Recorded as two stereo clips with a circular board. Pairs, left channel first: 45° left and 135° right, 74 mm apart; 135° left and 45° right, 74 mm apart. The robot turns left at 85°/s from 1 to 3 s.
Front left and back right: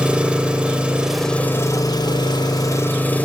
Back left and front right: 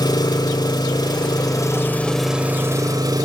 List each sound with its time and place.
0.0 s an engine running: 150° left, 1.7 m; by 3.3 s 20° right, 1.7 m